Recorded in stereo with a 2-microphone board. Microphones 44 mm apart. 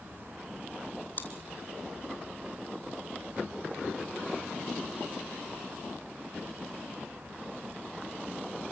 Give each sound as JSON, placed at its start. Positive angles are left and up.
{"t": 1.2, "sound": "chewing", "side_deg": 40, "distance_m": 3.0}